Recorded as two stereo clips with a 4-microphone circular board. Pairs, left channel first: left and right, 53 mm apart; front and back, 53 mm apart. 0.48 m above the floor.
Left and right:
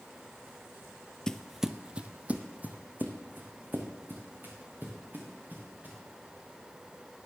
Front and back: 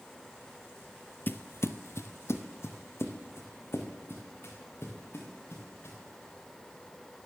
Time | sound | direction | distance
1.3 | footsteps | 20° left | 0.5 m